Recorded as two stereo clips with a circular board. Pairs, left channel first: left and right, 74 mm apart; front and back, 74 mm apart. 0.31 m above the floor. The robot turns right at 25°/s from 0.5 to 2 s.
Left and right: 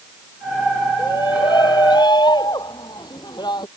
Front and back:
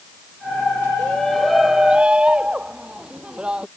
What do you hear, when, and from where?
1.0 s a shout: 75° left; by 3.7 s 105° left